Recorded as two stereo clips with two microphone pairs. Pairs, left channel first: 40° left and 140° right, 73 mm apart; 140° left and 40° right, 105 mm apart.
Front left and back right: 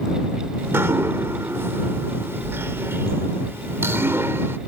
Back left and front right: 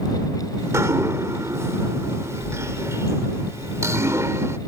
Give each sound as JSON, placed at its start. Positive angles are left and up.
{"t": 0.6, "sound": "dripping", "azimuth_deg": -95}